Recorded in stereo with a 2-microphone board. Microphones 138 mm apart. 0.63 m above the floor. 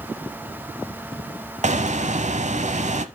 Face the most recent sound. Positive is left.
turn(degrees=-60)  # may be behind; listen again after turning